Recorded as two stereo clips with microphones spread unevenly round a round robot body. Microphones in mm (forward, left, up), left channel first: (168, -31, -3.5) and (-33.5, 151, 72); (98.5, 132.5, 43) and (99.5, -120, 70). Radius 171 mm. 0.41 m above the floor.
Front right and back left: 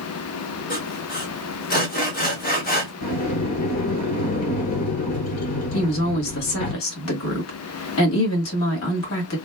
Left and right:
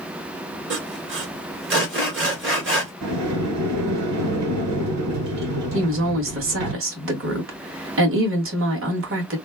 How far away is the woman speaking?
About 1.9 m.